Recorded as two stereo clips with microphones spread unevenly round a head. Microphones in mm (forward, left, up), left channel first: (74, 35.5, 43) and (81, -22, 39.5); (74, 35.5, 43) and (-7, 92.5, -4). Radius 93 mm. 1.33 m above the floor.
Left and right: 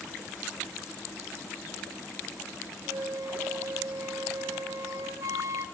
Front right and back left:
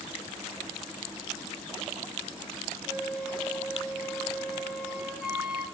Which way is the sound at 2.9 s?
105° right.